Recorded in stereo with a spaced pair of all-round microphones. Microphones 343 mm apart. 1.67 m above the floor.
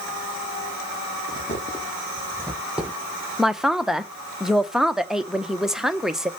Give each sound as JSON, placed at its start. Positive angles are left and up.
{"t": 1.3, "sound": "footsteps", "side_deg": 25, "distance_m": 3.5}
{"t": 3.4, "sound": "a man speaking", "side_deg": 0, "distance_m": 0.8}